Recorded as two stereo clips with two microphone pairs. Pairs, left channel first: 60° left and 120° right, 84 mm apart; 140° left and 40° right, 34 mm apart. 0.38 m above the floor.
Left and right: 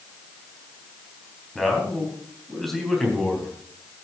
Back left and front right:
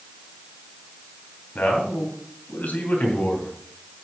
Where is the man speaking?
150° left, 3 m.